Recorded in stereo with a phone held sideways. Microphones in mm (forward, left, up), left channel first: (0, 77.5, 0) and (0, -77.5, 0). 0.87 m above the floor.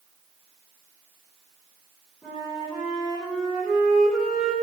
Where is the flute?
Centre (ahead or behind), 3.5 m.